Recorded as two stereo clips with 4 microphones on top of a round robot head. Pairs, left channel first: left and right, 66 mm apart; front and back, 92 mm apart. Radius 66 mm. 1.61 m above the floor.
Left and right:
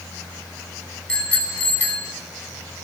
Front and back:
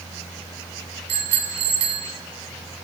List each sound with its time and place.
1.1 s a bicycle bell: 165° left, 9 m; by 2.1 s 155° left, 9.5 m